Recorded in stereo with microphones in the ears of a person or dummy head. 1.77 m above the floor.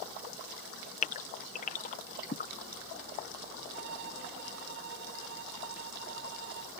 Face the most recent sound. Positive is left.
turn(degrees=-65)  # may be behind; listen again after turning